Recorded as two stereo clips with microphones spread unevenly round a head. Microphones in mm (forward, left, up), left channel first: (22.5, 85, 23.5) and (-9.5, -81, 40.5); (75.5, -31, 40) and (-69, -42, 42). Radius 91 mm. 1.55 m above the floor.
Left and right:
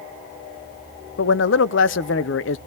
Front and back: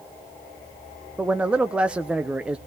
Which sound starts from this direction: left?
A man speaking, at 1.2 s.